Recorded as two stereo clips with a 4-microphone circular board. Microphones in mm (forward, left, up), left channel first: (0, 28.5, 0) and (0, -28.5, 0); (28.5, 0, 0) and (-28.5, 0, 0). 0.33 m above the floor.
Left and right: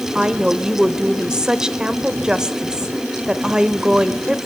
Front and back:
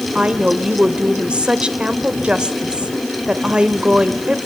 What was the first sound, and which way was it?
A woman speaking, 145° right.